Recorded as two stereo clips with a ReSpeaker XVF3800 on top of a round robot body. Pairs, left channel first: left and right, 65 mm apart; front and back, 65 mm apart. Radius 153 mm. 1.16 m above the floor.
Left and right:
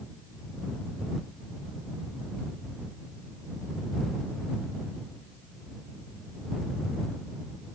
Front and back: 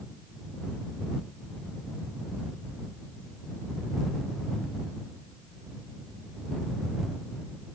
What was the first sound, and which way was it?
Only background noise.